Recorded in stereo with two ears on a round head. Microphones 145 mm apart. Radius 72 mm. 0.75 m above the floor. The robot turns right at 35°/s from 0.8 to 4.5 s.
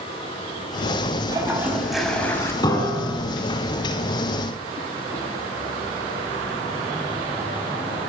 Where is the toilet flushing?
25° right, 4 m; by 2.5 s 20° left, 4 m.